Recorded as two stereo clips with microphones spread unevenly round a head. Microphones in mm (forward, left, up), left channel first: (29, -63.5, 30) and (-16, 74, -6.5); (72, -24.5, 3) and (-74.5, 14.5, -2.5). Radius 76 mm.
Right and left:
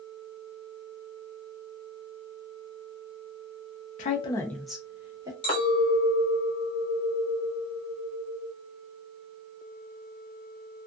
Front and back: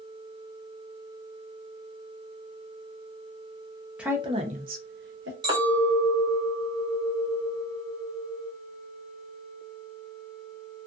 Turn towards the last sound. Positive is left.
turn(degrees=-130)